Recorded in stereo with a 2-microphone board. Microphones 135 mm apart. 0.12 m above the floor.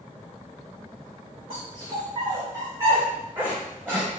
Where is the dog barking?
40° right (ahead or behind), 3.5 m; by 4.1 s 15° right (ahead or behind), 5 m.